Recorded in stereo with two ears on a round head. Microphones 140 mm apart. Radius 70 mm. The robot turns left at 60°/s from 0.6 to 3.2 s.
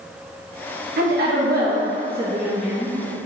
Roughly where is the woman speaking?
Right.